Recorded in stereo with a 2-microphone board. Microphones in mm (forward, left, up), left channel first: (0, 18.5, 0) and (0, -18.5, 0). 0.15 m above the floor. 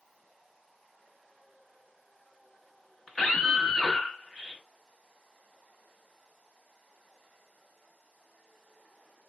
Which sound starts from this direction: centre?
A scream, at 3.1 s.